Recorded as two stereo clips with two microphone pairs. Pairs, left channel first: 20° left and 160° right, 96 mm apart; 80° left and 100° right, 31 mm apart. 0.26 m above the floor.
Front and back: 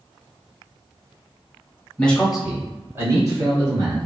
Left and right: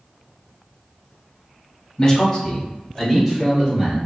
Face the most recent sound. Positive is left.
turn(degrees=175)